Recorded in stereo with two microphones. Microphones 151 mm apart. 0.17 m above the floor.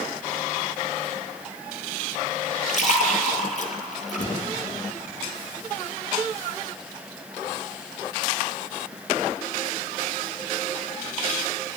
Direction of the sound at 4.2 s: 60° left (ahead or behind).